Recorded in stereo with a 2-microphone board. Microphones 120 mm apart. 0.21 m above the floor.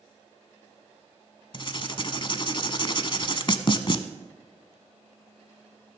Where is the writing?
45° left (ahead or behind), 0.7 m.